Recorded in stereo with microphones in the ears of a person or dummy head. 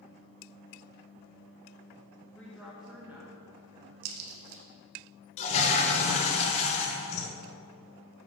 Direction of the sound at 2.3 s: 10° left (ahead or behind).